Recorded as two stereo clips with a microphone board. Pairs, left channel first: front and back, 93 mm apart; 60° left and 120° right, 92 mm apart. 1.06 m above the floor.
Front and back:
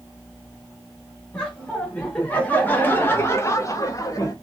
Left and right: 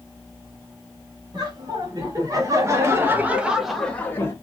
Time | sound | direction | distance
1.3 | laughter | 80° right | 1.5 m